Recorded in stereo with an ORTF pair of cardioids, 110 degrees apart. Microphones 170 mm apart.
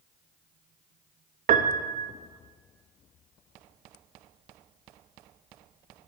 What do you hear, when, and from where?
1.5 s a piano: 50° right, 0.7 m